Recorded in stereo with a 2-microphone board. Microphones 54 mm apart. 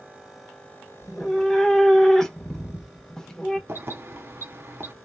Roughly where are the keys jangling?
Right.